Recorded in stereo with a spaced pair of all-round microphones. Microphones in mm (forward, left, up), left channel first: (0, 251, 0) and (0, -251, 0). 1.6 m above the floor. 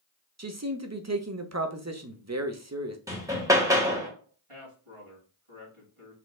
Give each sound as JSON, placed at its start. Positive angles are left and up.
{"t": 0.4, "sound": "a man speaking", "side_deg": -30, "distance_m": 0.8}
{"t": 3.1, "sound": "hammering", "side_deg": -5, "distance_m": 1.3}
{"t": 4.5, "sound": "a man speaking", "side_deg": -85, "distance_m": 3.0}